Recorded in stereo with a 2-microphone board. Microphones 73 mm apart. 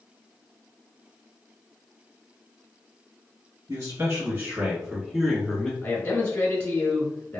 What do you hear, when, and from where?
3.7 s a man speaking: 40° right (ahead or behind), 1.6 m; by 5.7 s 15° left (ahead or behind), 1.2 m
5.8 s a man speaking: 25° left (ahead or behind), 1.2 m